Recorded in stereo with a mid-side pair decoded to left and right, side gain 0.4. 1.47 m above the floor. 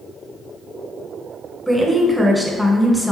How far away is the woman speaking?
About 0.9 m.